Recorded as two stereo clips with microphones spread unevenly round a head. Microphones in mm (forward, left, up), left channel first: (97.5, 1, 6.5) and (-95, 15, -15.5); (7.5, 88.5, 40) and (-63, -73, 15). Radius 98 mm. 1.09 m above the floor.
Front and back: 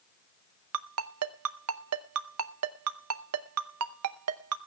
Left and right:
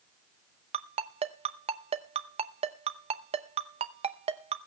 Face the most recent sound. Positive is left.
turn(degrees=-170)